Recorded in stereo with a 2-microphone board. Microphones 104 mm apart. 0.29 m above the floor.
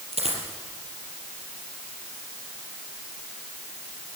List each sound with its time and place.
0.1 s a dropped coin: 85° right, 4.5 m